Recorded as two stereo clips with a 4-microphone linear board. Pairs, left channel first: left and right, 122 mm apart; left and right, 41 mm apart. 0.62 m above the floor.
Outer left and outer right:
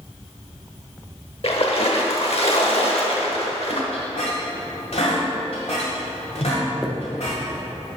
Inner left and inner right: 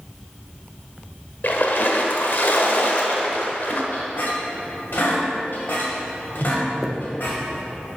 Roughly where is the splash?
Left.